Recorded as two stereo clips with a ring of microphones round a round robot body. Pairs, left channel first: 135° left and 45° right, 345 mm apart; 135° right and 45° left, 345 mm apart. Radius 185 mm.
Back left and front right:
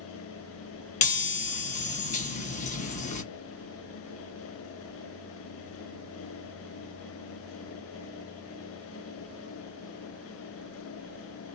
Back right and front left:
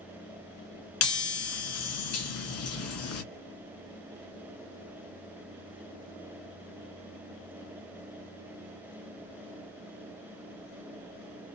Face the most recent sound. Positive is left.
turn(degrees=-160)